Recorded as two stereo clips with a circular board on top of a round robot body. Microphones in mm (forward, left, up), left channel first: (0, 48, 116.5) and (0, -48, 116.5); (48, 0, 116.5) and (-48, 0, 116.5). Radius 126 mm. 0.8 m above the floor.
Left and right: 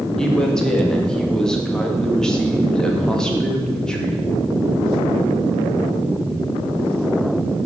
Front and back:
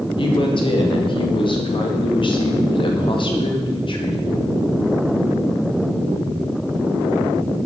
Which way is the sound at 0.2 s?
10° left.